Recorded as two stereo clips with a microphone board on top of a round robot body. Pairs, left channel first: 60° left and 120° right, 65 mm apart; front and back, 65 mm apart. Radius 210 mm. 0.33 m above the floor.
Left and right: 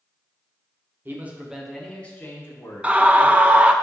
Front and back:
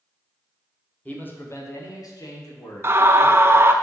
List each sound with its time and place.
1.1 s a man speaking: 65° right, 2.0 m; by 3.7 s 25° left, 4 m
2.8 s a scream: 175° right, 0.9 m